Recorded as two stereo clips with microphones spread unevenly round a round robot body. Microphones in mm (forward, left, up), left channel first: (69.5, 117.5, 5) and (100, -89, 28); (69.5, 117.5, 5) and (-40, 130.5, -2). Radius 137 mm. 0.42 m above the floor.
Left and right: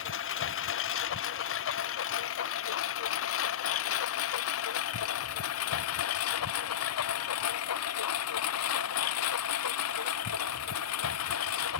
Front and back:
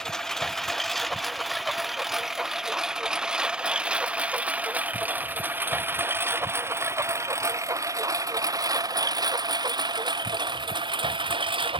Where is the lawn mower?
80° left; by 11.8 s 135° left.